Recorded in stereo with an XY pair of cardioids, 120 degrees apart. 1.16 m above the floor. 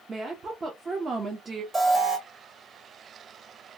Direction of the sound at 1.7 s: 30° right.